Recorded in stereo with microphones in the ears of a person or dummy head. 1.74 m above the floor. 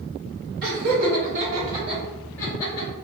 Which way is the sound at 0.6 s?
50° right (ahead or behind).